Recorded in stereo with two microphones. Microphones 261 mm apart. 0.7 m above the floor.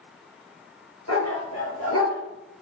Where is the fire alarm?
No fire alarm in this recording.